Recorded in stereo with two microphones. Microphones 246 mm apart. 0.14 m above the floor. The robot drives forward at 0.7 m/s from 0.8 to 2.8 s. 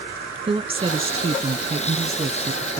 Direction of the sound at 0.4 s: 20° right (ahead or behind).